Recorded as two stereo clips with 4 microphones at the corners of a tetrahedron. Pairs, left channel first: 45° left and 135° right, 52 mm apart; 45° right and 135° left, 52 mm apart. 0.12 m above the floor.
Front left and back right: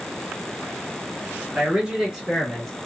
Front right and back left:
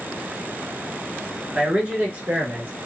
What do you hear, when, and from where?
1.6 s a man speaking: 175° right, 1.3 m; by 2.7 s 120° left, 1.3 m